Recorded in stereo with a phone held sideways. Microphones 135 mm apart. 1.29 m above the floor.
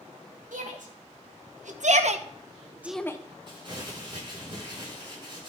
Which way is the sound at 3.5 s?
35° right (ahead or behind).